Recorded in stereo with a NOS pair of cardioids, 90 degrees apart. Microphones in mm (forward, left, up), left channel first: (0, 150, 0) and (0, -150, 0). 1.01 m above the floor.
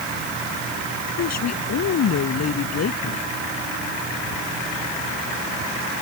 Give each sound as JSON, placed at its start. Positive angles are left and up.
{"t": 1.2, "sound": "a woman speaking", "azimuth_deg": 60}